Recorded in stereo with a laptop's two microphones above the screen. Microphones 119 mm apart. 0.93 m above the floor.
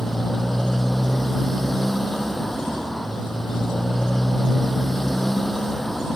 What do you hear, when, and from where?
0.0 s a motorcycle: centre (ahead or behind)